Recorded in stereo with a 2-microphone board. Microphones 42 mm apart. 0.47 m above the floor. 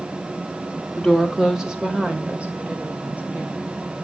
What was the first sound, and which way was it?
A woman speaking, 10° left (ahead or behind).